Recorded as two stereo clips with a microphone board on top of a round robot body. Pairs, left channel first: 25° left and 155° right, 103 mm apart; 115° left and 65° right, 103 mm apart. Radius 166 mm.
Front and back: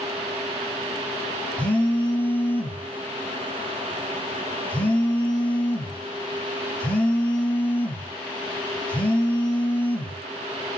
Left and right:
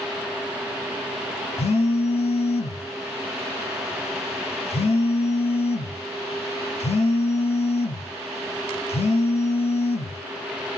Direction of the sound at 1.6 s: 100° left.